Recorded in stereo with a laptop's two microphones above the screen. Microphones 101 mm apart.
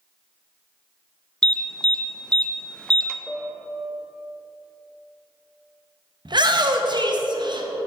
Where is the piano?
5° left (ahead or behind), 0.8 m.